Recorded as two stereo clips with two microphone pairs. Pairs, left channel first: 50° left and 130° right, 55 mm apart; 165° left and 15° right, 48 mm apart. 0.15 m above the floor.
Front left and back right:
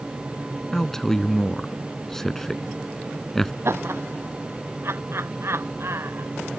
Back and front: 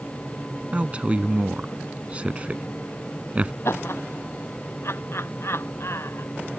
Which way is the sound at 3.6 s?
170° right.